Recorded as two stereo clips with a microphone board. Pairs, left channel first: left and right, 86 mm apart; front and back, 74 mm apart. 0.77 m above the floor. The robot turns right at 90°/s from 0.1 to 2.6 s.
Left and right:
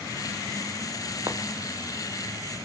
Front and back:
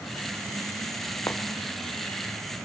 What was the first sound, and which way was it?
Footsteps, 55° right.